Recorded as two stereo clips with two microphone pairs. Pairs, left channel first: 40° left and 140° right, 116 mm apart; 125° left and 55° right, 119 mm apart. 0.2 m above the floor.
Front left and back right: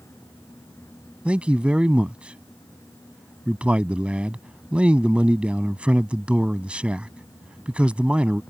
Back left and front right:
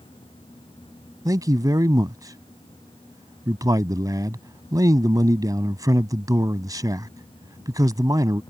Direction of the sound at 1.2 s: 70° right.